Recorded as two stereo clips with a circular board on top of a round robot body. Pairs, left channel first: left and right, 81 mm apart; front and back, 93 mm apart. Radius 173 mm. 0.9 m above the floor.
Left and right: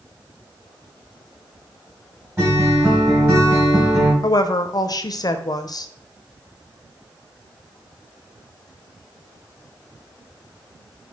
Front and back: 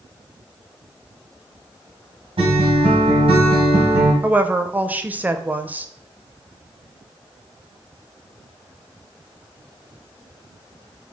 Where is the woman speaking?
110° left, 0.6 m.